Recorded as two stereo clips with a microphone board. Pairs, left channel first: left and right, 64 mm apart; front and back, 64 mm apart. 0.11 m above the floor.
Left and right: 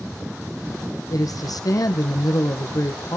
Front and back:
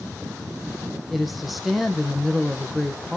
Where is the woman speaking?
90° left, 3.5 m.